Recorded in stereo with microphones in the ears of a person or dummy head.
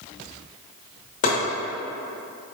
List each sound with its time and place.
1.2 s chopping: 35° left (ahead or behind), 1.1 m